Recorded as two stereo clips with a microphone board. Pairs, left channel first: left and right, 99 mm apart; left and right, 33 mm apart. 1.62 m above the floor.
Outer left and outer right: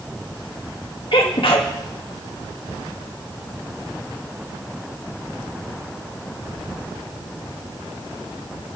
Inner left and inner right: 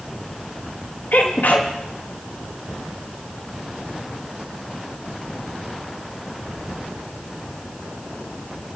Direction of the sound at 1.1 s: 70° left (ahead or behind).